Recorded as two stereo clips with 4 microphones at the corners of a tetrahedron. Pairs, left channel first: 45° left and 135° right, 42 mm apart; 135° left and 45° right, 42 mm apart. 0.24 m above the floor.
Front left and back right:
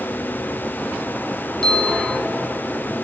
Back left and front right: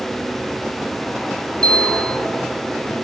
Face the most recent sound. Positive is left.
turn(degrees=100)